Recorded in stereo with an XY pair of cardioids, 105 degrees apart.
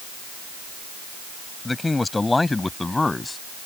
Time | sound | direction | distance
1.6 | a man speaking | 20° left | ?